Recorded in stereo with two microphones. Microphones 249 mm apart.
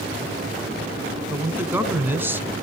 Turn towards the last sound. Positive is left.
turn(degrees=-10)  # may be behind; listen again after turning